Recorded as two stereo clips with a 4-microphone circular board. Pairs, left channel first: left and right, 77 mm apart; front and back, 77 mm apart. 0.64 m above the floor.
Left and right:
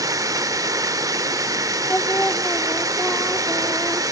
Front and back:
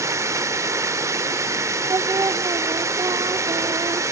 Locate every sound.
0.0 s running water: 130° right, 0.8 m
1.9 s singing: 155° left, 0.5 m